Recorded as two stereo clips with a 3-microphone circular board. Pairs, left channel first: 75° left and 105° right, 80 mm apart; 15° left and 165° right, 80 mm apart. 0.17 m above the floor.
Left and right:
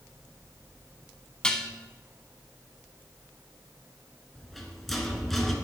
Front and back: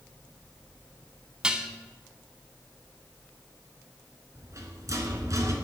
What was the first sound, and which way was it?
Dishes clattering, 140° left.